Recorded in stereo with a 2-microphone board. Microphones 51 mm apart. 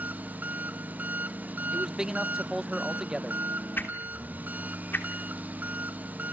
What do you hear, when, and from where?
0.0 s an engine running: 30° right (ahead or behind), 1.0 m
1.7 s a man speaking: 10° right (ahead or behind), 0.8 m
3.8 s a whoosh: 40° left (ahead or behind), 3 m